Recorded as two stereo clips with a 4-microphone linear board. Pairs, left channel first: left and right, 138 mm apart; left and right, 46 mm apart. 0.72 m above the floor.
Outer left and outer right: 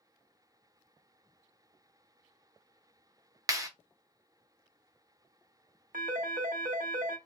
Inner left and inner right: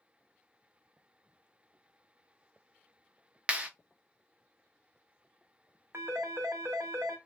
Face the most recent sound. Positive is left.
turn(degrees=-80)